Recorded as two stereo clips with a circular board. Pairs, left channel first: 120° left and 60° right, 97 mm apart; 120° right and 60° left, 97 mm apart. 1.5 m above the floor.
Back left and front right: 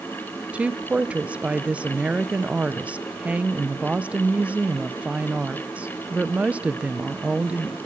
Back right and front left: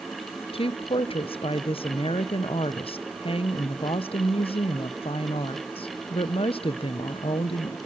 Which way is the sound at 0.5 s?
135° right.